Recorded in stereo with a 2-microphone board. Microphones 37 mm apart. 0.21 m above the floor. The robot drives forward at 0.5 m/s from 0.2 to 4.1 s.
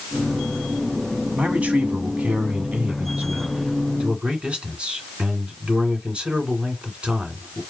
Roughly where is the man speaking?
Right.